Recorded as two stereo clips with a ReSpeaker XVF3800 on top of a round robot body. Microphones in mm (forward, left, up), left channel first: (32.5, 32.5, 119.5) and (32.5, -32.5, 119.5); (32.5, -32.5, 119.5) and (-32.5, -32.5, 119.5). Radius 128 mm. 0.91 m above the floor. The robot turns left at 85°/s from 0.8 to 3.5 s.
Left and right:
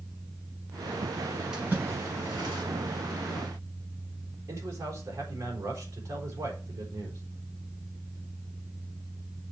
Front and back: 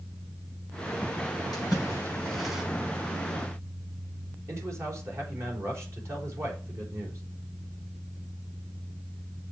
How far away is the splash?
About 5 m.